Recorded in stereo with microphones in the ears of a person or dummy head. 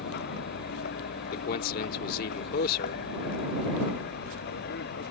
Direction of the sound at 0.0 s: 55° left (ahead or behind).